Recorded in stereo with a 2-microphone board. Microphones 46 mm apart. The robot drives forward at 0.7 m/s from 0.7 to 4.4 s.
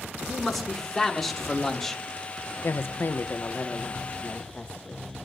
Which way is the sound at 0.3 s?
5° left (ahead or behind).